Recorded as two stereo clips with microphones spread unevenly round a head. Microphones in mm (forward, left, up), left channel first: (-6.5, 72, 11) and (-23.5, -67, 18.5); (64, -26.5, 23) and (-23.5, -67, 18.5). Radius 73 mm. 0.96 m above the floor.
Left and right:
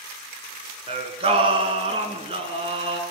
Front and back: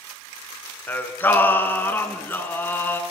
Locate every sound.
0.9 s singing: 40° right, 2.5 m